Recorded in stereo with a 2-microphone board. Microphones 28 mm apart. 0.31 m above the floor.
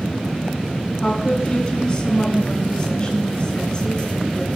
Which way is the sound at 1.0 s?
30° left (ahead or behind).